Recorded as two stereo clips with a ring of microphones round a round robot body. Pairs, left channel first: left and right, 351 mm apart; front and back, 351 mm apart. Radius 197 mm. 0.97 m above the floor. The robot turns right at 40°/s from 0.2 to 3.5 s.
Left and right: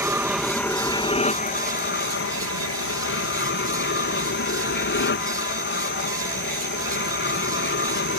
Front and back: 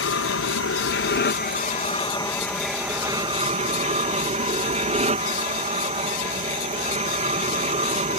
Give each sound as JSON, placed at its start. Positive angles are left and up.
{"t": 0.0, "sound": "an aircraft", "azimuth_deg": -10}